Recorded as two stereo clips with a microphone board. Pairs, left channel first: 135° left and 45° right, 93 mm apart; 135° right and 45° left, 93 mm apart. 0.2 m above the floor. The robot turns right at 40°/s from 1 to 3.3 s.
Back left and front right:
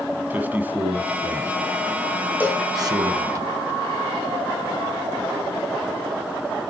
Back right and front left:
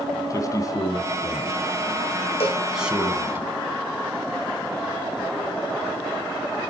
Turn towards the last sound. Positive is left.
turn(degrees=-80)